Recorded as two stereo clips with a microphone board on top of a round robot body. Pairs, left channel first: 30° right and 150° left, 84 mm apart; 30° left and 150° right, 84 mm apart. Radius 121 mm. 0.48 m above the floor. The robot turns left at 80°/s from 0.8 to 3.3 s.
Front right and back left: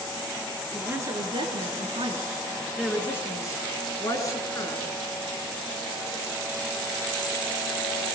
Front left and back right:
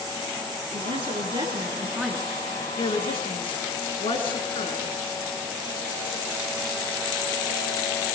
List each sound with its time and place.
0.7 s a woman speaking: 135° right, 7.5 m; by 4.9 s 25° left, 7.5 m